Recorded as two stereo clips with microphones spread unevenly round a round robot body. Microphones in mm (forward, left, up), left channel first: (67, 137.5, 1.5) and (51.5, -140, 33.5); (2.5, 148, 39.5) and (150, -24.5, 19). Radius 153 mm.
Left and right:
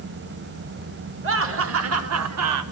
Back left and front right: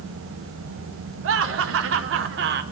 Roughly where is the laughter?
Ahead right.